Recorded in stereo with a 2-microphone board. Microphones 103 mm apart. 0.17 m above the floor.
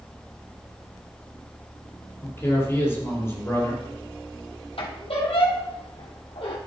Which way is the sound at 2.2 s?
25° left (ahead or behind).